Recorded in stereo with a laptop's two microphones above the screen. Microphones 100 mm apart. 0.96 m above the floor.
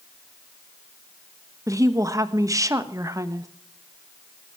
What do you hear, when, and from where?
1.7 s a woman speaking: 35° right (ahead or behind), 1.3 m